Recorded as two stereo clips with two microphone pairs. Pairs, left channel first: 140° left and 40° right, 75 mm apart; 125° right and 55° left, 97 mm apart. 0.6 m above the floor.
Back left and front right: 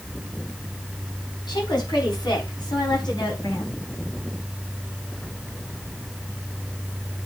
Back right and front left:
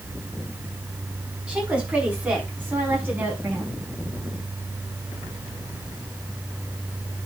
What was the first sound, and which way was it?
A woman speaking, 130° left.